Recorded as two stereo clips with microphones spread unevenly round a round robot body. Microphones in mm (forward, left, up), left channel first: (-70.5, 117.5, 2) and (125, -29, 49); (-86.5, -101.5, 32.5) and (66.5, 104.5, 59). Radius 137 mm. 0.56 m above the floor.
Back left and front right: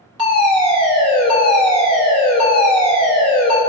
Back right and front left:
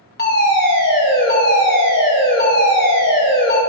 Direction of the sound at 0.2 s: 110° right.